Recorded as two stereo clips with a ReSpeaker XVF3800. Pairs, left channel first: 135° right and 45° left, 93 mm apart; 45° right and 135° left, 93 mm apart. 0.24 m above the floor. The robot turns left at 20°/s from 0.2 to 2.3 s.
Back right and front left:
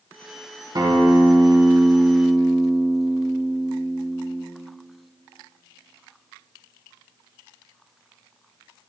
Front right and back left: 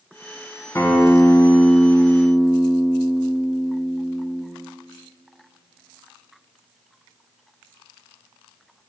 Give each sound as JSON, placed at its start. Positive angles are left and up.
{"t": 0.8, "sound": "a guitar", "azimuth_deg": 10, "distance_m": 0.8}